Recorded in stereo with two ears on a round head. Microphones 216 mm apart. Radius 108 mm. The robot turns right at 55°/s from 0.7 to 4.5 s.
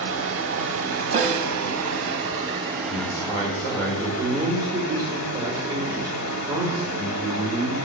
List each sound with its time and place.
0.0 s running water: 125° right, 0.9 m; by 7.8 s 85° left, 0.9 m
1.1 s a snare drum: 30° right (ahead or behind), 0.6 m; by 1.5 s 50° right (ahead or behind), 0.6 m
2.9 s a man speaking: 115° left, 1.0 m; by 7.8 s 160° right, 1.0 m